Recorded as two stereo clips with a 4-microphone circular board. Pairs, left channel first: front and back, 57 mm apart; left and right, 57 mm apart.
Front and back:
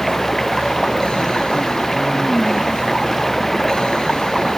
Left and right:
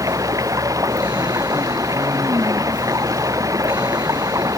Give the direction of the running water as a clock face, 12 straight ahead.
3 o'clock.